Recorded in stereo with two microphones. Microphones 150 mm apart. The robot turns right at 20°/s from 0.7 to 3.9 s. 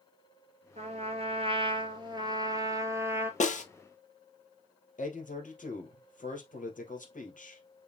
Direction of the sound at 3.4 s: 55° left (ahead or behind).